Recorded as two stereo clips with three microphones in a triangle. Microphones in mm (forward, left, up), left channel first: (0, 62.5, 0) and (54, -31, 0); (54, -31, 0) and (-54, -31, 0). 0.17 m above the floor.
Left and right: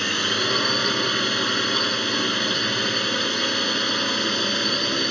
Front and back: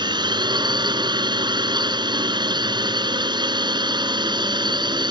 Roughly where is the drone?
Behind right.